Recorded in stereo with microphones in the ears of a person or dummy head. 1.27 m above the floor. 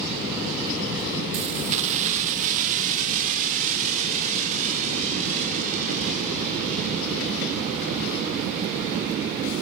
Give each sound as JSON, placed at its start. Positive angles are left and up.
{"t": 1.3, "sound": "keys jangling", "side_deg": -35, "distance_m": 0.6}